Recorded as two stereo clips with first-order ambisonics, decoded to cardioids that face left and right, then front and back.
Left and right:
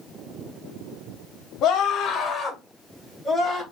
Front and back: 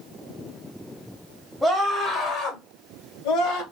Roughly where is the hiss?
I don't hear a hiss.